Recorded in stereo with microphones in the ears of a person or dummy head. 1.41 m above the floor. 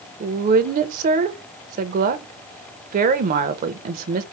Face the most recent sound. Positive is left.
turn(degrees=-50)  # may be behind; listen again after turning